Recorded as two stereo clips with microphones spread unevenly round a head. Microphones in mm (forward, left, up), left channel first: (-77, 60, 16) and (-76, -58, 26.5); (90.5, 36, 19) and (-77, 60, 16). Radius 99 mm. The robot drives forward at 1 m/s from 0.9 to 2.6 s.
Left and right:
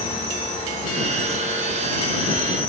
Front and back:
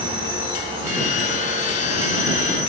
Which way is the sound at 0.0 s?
115° left.